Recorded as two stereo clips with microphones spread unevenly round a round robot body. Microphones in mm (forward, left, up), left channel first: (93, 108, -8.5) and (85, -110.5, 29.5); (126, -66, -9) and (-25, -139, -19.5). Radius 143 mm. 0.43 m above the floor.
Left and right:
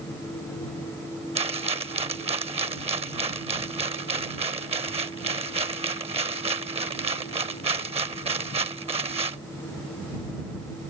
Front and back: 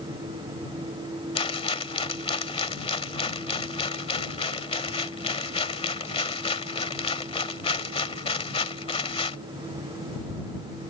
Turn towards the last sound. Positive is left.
turn(degrees=-25)